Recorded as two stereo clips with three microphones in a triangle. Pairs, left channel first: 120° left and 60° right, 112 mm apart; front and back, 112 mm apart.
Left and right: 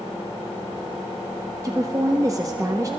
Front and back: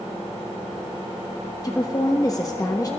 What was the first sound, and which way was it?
A woman speaking, 25° right.